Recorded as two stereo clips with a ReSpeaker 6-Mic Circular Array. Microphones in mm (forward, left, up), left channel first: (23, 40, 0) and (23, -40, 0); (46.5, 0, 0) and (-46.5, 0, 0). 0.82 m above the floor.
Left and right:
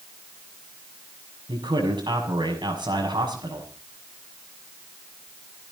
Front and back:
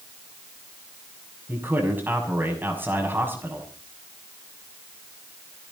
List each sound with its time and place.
1.5 s a man speaking: 115° right, 6 m